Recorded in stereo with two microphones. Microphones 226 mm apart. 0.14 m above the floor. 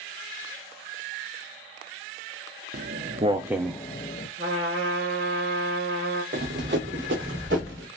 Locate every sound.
2.7 s footsteps: 50° right (ahead or behind), 0.8 m; by 4.3 s 40° left (ahead or behind), 0.7 m
4.4 s a trumpet: 65° right (ahead or behind), 1.7 m
6.3 s running footsteps: 50° right (ahead or behind), 0.8 m; by 7.9 s 55° right (ahead or behind), 1.7 m